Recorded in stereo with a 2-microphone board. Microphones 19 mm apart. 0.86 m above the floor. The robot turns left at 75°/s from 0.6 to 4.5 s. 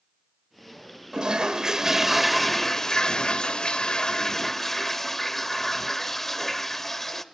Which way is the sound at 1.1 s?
90° right.